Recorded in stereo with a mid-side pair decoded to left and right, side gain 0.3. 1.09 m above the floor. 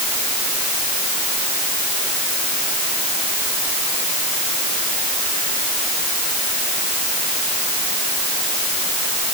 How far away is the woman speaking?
I don't hear a woman speaking.